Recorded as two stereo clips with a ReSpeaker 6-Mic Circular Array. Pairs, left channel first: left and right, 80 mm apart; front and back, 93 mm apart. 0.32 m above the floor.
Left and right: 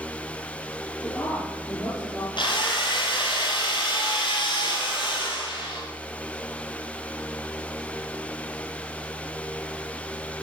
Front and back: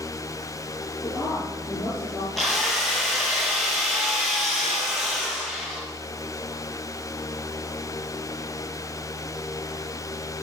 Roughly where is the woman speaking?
Ahead left.